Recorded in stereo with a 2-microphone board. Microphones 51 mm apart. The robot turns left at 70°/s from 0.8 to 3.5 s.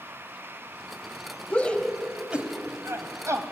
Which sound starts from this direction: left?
A shout, at 1.5 s.